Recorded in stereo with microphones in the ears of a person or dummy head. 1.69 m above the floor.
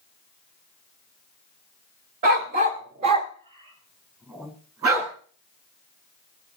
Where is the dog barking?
30° right (ahead or behind), 1.6 m; by 5.1 s 15° right (ahead or behind), 4 m.